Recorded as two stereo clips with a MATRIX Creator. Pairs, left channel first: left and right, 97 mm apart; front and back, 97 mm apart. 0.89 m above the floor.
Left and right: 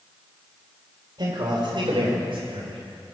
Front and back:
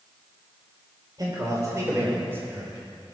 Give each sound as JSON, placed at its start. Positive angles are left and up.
{"t": 1.2, "sound": "a man speaking", "azimuth_deg": -130, "distance_m": 4.0}